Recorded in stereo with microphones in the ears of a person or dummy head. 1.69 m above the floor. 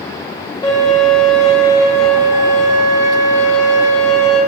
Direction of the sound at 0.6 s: 15° left (ahead or behind).